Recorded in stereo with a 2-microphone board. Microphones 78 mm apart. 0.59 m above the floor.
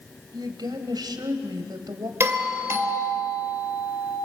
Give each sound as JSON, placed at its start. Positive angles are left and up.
{"t": 0.3, "sound": "a woman speaking", "side_deg": -75, "distance_m": 3.0}
{"t": 2.2, "sound": "a doorbell", "side_deg": -35, "distance_m": 3.0}